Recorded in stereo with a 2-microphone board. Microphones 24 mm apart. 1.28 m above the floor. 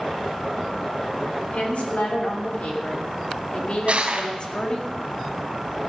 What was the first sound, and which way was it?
A woman speaking, 80° left.